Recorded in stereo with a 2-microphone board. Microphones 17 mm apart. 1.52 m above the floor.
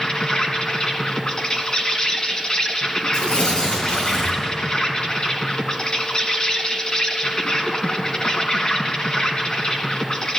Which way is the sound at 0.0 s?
50° left (ahead or behind).